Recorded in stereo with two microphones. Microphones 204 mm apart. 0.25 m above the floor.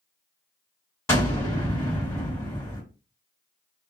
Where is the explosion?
15° left (ahead or behind), 1.9 m.